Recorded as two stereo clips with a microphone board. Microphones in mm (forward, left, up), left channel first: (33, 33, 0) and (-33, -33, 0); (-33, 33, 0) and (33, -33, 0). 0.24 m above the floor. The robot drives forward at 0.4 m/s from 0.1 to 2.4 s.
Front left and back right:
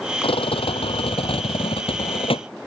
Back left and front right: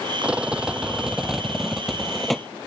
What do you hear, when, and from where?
0.2 s a rattle: 35° left; by 2.5 s 45° left